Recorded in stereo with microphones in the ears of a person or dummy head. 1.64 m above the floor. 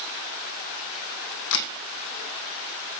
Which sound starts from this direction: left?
A camera shutter, at 1.5 s.